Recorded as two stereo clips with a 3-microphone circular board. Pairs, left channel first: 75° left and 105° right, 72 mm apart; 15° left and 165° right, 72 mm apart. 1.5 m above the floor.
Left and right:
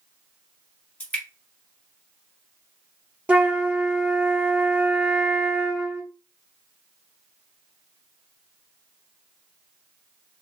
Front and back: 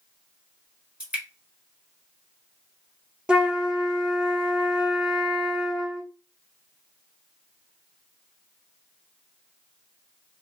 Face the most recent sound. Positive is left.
turn(degrees=-120)